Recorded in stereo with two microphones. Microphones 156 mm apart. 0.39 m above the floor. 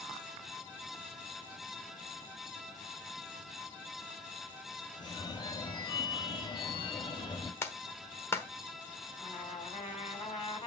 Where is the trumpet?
35° left (ahead or behind), 2.5 m.